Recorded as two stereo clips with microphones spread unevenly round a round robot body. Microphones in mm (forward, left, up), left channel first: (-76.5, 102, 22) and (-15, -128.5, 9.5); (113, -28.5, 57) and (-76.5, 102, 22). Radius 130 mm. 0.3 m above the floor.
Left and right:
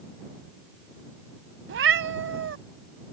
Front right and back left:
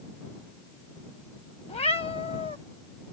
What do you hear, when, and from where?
1.7 s a cat meowing: 105° right